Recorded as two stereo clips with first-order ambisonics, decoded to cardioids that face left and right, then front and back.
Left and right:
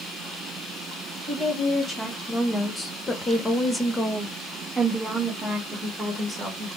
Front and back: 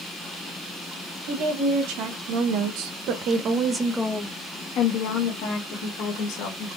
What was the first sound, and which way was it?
A woman speaking, 165° left.